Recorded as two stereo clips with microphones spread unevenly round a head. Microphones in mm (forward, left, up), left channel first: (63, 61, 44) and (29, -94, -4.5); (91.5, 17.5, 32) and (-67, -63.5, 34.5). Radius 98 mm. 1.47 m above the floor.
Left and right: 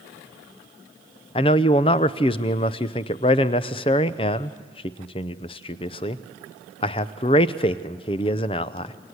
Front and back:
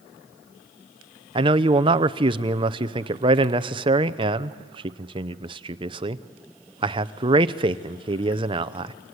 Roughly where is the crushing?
No crushing in this recording.